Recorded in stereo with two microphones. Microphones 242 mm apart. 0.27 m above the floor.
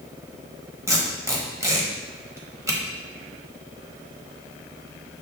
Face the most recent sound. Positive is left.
turn(degrees=-10)  # may be behind; listen again after turning